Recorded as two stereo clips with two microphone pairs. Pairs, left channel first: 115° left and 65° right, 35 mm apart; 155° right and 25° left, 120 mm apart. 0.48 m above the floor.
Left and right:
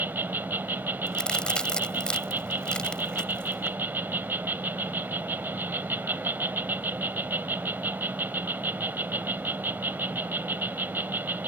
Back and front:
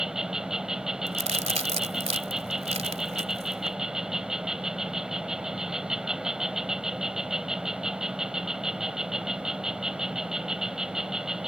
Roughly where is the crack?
Ahead left.